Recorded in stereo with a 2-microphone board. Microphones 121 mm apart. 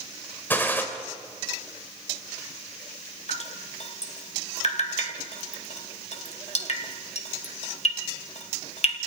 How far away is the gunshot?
About 3.5 m.